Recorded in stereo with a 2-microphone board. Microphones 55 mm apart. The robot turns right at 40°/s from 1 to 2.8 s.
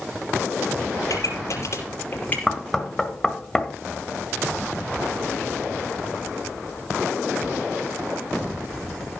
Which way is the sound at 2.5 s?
5° left (ahead or behind).